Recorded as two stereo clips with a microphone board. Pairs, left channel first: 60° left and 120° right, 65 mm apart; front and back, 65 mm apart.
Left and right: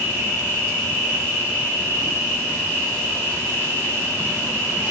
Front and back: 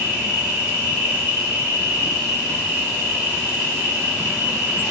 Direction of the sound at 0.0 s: 125° right.